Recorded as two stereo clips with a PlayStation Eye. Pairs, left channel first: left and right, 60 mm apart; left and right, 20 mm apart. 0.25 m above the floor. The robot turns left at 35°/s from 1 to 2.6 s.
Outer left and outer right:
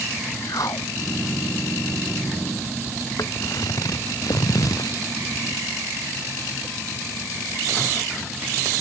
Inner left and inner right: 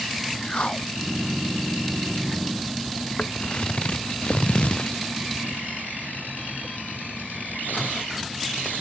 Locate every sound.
0.4 s a whoosh: 75° left (ahead or behind)
3.2 s footsteps: 70° left (ahead or behind); by 5.0 s 85° left